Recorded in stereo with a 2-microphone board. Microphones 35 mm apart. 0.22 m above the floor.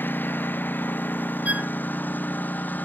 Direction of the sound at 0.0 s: 65° left (ahead or behind).